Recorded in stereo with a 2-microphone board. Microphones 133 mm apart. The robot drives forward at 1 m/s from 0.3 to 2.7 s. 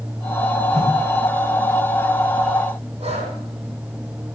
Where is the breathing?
45° right (ahead or behind), 7 m.